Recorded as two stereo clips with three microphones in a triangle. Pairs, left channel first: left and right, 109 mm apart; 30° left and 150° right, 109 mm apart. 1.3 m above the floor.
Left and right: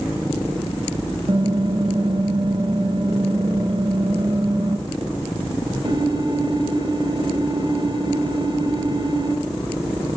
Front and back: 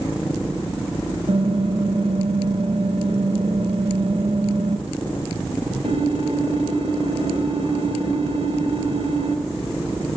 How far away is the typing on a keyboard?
About 2.5 m.